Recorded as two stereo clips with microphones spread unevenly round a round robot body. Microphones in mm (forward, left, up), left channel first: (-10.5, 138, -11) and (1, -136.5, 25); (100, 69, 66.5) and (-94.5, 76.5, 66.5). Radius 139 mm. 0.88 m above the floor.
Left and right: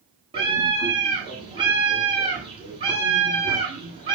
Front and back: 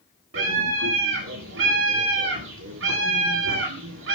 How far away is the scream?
About 10 m.